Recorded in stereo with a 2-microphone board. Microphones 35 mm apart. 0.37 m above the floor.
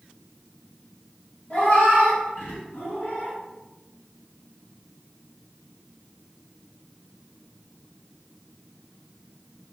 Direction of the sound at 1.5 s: 50° left (ahead or behind).